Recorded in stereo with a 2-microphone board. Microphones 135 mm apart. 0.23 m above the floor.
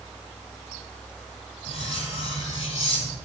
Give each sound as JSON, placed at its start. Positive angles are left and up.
{"t": 1.7, "sound": "cutlery clinking", "side_deg": 55, "distance_m": 4.0}